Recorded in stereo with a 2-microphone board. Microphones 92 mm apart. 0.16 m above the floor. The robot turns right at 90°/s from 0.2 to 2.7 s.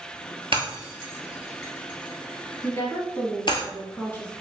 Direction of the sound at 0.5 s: 70° right (ahead or behind).